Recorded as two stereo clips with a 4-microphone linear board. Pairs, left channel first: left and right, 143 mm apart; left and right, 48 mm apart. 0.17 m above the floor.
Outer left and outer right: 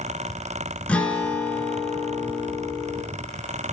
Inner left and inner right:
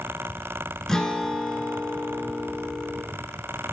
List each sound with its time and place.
0.9 s a guitar: 10° left (ahead or behind), 0.8 m